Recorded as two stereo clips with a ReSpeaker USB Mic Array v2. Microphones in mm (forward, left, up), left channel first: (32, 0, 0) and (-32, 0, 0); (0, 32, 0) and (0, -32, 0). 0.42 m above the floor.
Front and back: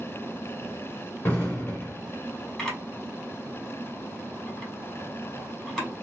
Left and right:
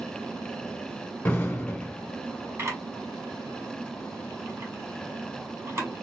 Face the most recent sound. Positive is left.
turn(degrees=-80)